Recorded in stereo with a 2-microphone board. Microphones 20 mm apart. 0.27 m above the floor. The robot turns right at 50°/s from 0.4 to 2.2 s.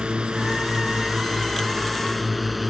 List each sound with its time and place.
0.0 s a drone: 70° right (ahead or behind); by 2.7 s 5° right (ahead or behind)